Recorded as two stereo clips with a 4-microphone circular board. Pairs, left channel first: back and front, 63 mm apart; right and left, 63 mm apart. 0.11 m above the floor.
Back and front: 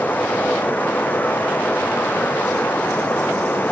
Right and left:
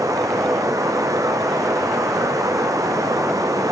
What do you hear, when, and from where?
0.0 s running water: 120° left, 1.1 m